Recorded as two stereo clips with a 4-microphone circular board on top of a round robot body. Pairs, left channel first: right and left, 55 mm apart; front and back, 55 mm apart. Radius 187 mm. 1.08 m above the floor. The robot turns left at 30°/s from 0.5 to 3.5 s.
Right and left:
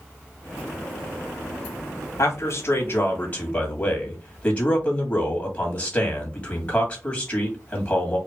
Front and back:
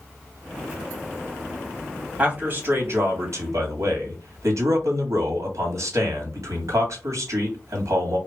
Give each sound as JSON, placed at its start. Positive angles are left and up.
{"t": 2.2, "sound": "a man speaking", "azimuth_deg": -115, "distance_m": 2.0}